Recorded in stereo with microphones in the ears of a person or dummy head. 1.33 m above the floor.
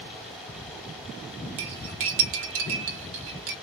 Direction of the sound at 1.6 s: 35° right (ahead or behind).